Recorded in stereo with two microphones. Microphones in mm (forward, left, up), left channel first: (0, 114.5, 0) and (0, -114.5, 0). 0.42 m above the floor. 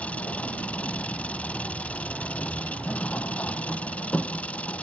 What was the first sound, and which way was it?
An engine running, 5° left (ahead or behind).